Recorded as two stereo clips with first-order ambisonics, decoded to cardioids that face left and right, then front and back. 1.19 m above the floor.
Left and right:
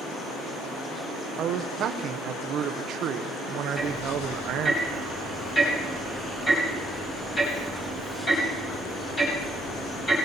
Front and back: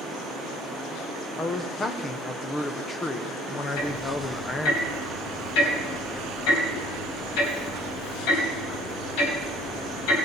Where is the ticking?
15° left, 4 m.